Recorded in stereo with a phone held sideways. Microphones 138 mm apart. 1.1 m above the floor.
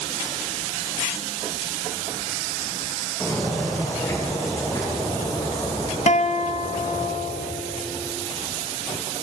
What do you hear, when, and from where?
3.2 s footsteps: 15° left (ahead or behind), 4 m; by 7.1 s 55° left (ahead or behind), 3.5 m
6.1 s a guitar: 55° left (ahead or behind), 0.5 m